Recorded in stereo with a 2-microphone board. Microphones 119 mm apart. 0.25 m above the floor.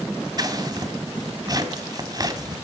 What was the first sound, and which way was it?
Scissors, 35° right (ahead or behind).